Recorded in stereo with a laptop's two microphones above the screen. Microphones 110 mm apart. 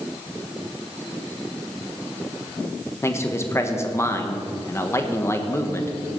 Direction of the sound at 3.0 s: 25° left (ahead or behind).